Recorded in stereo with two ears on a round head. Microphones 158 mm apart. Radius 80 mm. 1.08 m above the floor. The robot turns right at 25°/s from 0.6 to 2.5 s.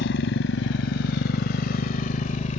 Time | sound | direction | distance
0.0 | a motorcycle | 75° left (ahead or behind) | ?